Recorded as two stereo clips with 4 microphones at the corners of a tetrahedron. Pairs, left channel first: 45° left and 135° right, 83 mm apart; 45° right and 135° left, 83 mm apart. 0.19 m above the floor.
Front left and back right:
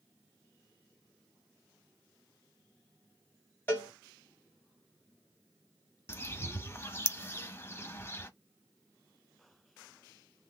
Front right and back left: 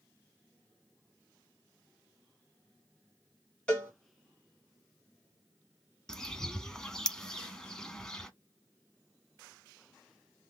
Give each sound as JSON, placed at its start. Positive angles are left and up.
{"t": 3.7, "sound": "a cowbell", "azimuth_deg": 15, "distance_m": 1.7}
{"t": 6.1, "sound": "a bird", "azimuth_deg": 30, "distance_m": 0.7}